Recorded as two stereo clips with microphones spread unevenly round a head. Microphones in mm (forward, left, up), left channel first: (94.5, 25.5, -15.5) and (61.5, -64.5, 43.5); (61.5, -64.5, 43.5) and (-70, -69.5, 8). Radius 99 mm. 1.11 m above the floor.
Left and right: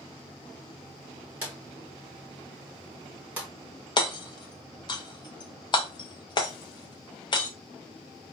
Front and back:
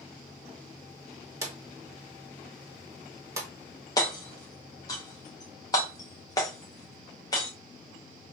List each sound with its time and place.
1.4 s a drawer: 105° right, 1.1 m
4.0 s hammering: 75° left, 0.6 m